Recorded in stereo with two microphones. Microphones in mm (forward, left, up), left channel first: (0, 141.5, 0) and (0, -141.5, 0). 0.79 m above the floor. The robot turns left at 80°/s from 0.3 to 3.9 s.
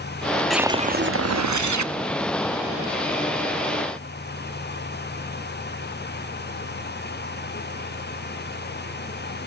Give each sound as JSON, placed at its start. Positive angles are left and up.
{"t": 0.5, "sound": "a whoosh", "azimuth_deg": 0, "distance_m": 0.6}